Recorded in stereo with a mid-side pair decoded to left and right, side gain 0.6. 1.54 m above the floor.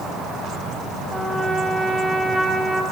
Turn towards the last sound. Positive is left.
turn(degrees=-10)